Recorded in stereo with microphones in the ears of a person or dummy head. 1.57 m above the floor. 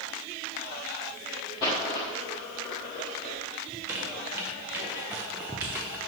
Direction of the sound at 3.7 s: 5° right (ahead or behind).